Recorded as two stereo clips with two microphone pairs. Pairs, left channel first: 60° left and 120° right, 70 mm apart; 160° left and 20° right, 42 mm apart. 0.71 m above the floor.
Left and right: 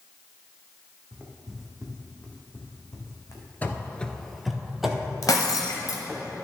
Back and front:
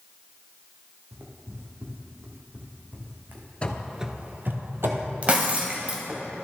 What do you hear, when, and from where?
1.1 s footsteps: 40° right, 2 m; by 3.5 s 25° left, 2.5 m
3.6 s running footsteps: 105° left, 0.8 m; by 6.2 s 40° right, 3.5 m
5.2 s breaking glass: 35° left, 1.5 m